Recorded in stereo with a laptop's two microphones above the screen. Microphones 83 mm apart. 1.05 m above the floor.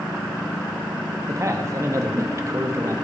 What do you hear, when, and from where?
1.3 s a man speaking: 40° right (ahead or behind), 1.6 m